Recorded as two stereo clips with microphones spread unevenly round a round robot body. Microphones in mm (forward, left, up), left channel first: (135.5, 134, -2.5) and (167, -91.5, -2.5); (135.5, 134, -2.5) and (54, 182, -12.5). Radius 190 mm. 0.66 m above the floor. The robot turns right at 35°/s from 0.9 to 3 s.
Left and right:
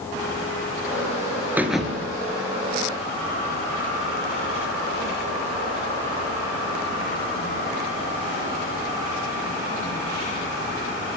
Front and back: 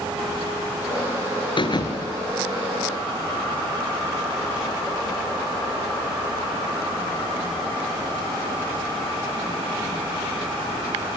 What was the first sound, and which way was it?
A thud, straight ahead.